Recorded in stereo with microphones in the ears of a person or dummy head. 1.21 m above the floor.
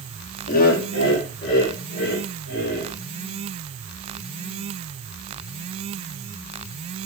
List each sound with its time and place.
0.5 s laughter: 45° left (ahead or behind), 0.6 m; by 2.9 s 70° left (ahead or behind), 2.5 m